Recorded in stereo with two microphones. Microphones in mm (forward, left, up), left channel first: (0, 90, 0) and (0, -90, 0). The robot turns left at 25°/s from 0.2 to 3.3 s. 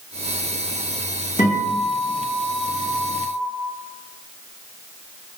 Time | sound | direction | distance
1.4 | a guitar | 105° left | 1.9 m